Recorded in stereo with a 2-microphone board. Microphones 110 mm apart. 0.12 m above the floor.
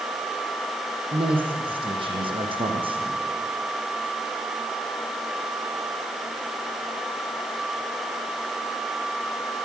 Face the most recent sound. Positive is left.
turn(degrees=-55)  # may be behind; listen again after turning